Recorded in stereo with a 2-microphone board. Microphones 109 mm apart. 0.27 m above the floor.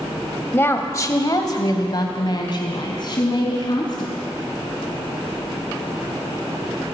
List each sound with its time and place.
0.5 s a woman speaking: 20° left (ahead or behind), 1.0 m; by 4.1 s 40° left (ahead or behind), 2.5 m